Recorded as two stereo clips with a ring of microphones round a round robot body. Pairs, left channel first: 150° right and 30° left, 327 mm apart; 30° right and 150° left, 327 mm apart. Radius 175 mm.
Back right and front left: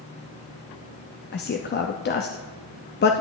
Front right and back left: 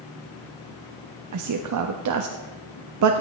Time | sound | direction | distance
1.3 | a man speaking | 160° left | 0.7 m